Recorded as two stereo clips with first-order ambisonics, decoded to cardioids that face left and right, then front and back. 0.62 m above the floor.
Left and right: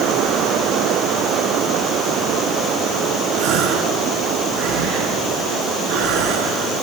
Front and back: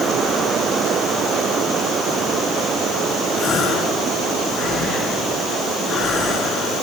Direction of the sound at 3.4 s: 60° right.